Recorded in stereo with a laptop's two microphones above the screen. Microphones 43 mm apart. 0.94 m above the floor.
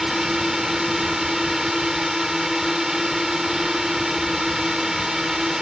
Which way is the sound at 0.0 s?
10° right (ahead or behind).